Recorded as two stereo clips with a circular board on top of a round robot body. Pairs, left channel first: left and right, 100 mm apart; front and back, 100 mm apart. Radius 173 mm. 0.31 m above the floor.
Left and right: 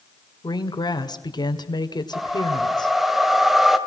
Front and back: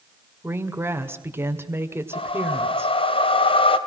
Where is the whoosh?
5° right, 2.5 m.